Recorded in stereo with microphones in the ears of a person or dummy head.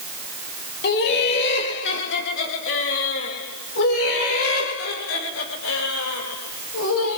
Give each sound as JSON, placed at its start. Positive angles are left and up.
{"t": 0.8, "sound": "laughter", "side_deg": 55, "distance_m": 3.5}